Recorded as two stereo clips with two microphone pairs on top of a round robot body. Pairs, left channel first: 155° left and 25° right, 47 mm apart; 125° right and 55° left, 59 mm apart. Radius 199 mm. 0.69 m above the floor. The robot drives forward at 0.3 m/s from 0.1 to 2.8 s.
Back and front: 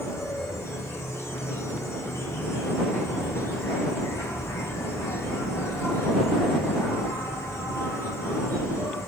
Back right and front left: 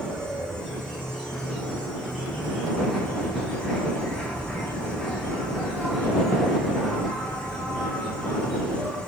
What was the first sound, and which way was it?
An insect, 160° left.